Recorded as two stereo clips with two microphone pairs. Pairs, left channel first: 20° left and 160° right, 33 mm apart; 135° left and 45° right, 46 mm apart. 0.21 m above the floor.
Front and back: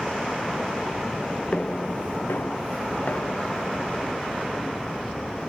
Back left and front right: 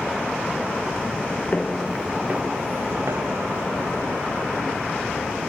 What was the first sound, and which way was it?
Footsteps, 70° left.